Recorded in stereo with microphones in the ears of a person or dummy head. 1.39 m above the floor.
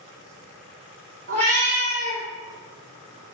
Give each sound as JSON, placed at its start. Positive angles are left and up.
{"t": 1.3, "sound": "a cat meowing", "side_deg": -25, "distance_m": 0.6}